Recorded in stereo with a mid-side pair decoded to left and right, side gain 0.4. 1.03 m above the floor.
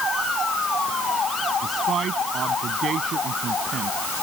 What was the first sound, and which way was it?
A man speaking, 55° right.